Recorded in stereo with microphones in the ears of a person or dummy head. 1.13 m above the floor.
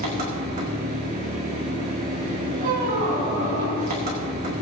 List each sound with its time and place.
0.0 s an engine running: 45° right (ahead or behind), 1.9 m
2.6 s a squeak: 50° right (ahead or behind), 3.5 m